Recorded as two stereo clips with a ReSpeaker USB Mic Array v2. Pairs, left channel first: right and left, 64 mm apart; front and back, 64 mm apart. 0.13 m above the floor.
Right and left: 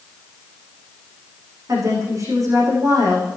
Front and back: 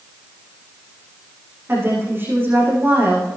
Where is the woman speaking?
120° left, 9.5 m.